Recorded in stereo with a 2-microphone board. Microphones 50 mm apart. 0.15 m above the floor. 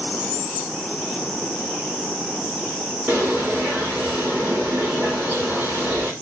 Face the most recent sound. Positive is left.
turn(degrees=-30)  # may be behind; listen again after turning